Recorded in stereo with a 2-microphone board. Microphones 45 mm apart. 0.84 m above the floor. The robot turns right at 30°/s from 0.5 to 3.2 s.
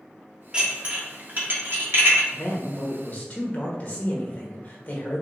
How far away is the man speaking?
About 1.2 m.